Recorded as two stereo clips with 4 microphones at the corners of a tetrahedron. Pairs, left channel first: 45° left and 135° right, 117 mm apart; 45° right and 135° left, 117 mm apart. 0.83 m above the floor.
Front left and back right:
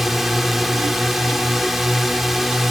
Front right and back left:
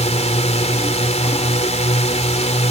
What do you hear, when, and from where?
0.0 s a drone: 45° right